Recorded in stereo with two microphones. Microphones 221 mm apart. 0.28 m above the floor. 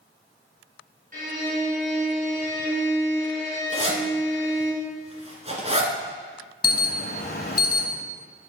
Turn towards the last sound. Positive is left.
turn(degrees=45)  # may be behind; listen again after turning